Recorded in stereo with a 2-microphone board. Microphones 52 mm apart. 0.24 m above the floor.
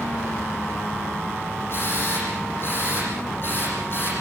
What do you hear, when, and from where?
1.7 s a drill: 50° left (ahead or behind), 9 m